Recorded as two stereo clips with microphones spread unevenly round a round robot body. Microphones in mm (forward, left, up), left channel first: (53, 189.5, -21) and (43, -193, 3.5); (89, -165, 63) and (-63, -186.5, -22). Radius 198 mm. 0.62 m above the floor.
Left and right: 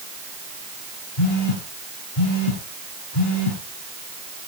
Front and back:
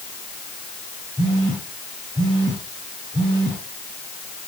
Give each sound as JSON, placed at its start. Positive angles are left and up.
{"t": 1.2, "sound": "a phone buzzing", "azimuth_deg": 90, "distance_m": 8.0}